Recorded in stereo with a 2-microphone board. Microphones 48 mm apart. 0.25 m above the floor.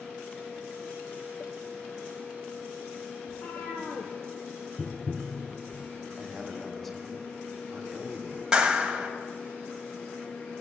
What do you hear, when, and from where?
3.3 s a cat meowing: 50° left (ahead or behind), 2 m
4.8 s tapping: 25° right (ahead or behind), 0.8 m
6.2 s a man speaking: 5° left (ahead or behind), 2 m
8.5 s a clap: 15° right (ahead or behind), 1.3 m